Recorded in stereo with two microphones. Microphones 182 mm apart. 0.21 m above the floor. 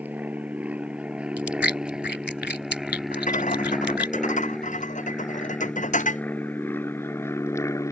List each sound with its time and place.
0.0 s an aircraft: 10° right (ahead or behind); by 7.9 s 15° left (ahead or behind)
1.4 s chewing: 75° left (ahead or behind)
3.1 s a rattle: 45° left (ahead or behind)